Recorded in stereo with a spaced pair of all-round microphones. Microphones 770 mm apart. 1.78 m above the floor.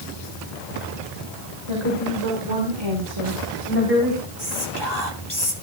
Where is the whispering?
30° left (ahead or behind), 4 m.